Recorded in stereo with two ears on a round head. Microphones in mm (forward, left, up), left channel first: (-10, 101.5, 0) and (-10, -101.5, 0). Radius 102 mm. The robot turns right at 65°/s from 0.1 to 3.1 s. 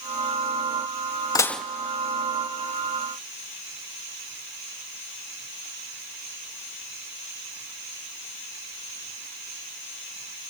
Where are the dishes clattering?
15° left (ahead or behind), 0.5 m; by 1.6 s 5° right (ahead or behind), 0.5 m.